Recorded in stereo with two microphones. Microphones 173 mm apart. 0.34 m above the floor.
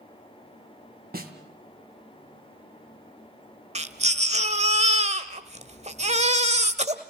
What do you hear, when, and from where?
1.1 s a snare drum: 65° right (ahead or behind), 2.5 m
3.8 s a baby crying: 40° right (ahead or behind), 1.2 m